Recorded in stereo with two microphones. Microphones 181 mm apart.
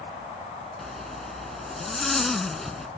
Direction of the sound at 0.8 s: Centre (ahead or behind).